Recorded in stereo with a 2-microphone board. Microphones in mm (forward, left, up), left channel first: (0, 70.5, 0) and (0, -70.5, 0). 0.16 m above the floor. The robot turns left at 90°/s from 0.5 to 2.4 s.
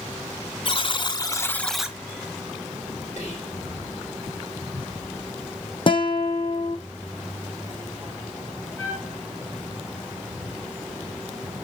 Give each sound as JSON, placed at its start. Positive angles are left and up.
{"t": 0.7, "sound": "a buzzer", "azimuth_deg": 100, "distance_m": 0.6}
{"t": 3.2, "sound": "whispering", "side_deg": 60, "distance_m": 4.0}
{"t": 5.9, "sound": "a guitar", "side_deg": 40, "distance_m": 1.2}
{"t": 8.8, "sound": "a trumpet", "side_deg": 15, "distance_m": 1.7}